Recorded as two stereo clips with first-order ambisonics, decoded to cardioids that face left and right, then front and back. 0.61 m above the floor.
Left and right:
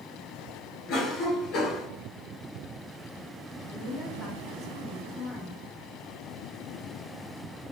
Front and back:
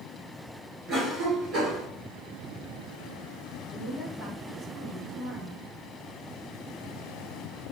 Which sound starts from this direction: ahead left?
A woman speaking, at 3.7 s.